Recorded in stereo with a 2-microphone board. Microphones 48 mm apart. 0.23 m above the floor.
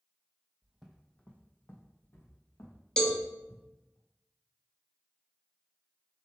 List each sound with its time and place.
0.6 s footsteps: 25° right (ahead or behind), 0.7 m; by 4.0 s 75° left (ahead or behind), 3 m
3.0 s a cowbell: 15° left (ahead or behind), 0.6 m